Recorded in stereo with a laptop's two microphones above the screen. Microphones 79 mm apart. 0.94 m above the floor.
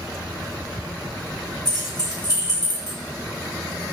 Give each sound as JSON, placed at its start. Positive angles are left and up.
{"t": 1.6, "sound": "keys jangling", "side_deg": 50, "distance_m": 1.4}